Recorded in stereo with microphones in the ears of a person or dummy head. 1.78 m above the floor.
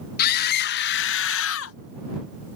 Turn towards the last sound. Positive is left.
turn(degrees=80)